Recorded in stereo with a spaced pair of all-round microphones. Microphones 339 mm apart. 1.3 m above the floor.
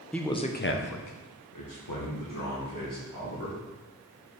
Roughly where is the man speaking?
Centre.